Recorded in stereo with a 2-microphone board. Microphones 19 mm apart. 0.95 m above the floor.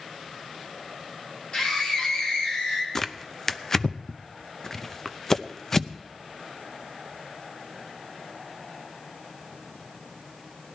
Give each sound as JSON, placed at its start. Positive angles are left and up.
{"t": 1.5, "sound": "a scream", "side_deg": 50, "distance_m": 3.5}
{"t": 3.0, "sound": "tearing paper", "side_deg": 25, "distance_m": 0.6}